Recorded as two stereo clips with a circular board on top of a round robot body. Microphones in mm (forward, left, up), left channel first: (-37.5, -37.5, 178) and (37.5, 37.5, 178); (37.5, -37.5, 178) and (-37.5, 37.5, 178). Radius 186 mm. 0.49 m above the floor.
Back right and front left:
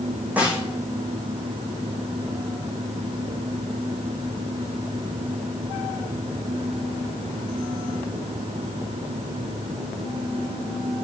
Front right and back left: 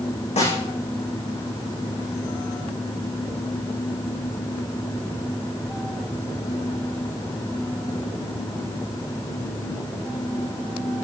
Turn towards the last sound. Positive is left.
turn(degrees=-30)